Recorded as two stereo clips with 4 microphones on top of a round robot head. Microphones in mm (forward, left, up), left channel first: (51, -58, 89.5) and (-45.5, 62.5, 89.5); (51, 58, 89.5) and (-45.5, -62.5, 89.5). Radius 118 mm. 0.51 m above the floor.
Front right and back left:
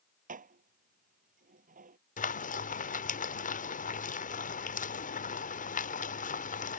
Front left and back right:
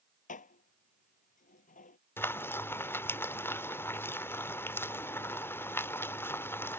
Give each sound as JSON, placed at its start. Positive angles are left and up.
{"t": 0.3, "sound": "dishes clattering", "azimuth_deg": 90}
{"t": 2.2, "sound": "frying", "azimuth_deg": -25}